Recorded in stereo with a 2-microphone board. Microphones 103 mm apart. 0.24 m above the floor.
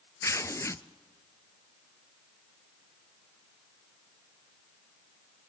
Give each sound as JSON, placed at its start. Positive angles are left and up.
{"t": 0.2, "sound": "tearing paper", "side_deg": 30, "distance_m": 0.7}